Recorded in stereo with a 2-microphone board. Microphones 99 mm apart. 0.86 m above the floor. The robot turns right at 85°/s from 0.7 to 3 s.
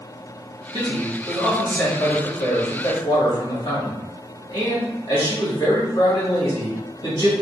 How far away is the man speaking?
About 2.0 m.